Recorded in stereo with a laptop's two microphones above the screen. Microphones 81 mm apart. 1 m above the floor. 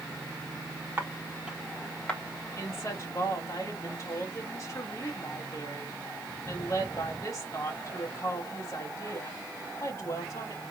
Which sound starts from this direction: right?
Footsteps, at 1.0 s.